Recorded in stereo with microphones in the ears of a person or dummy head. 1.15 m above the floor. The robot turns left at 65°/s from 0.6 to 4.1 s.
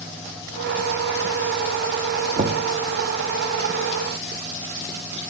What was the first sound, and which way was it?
Knocking, 30° right (ahead or behind).